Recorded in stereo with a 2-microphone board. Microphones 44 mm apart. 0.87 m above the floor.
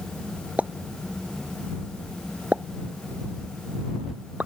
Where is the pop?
35° right (ahead or behind).